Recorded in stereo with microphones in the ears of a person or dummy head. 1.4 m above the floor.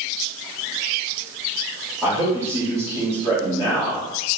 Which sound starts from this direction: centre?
A man speaking, at 2.0 s.